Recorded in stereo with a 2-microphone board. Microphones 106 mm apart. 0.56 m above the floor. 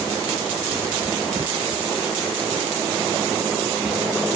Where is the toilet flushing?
No toilet flushing in this recording.